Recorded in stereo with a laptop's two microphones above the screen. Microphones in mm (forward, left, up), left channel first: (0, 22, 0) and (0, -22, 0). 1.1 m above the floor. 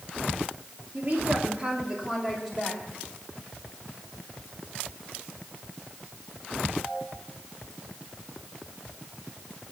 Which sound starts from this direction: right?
A woman speaking, at 0.9 s.